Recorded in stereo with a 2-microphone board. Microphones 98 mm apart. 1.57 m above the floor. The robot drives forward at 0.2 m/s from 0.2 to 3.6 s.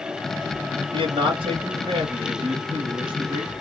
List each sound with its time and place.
0.9 s a man speaking: 60° right (ahead or behind), 0.9 m; by 3.5 s 55° right (ahead or behind), 1.0 m